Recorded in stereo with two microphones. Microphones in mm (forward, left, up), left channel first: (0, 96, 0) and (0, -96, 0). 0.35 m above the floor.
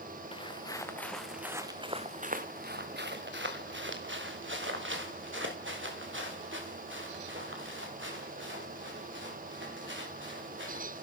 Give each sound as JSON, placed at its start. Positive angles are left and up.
{"t": 0.3, "sound": "footsteps", "side_deg": 30, "distance_m": 1.6}